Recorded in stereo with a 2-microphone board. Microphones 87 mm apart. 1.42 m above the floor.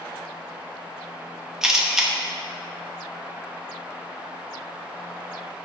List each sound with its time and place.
1.6 s a camera shutter: 5° right (ahead or behind), 1.2 m